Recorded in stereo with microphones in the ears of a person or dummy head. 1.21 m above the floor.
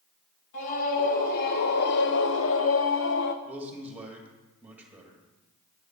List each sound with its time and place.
0.5 s a scream: 50° left (ahead or behind), 1.6 m; by 3.4 s 45° left (ahead or behind), 0.7 m
3.5 s a man speaking: 5° right (ahead or behind), 2 m